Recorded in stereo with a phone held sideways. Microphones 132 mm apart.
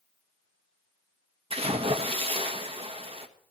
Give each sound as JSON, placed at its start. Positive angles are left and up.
{"t": 1.5, "sound": "a splash", "side_deg": -45, "distance_m": 1.3}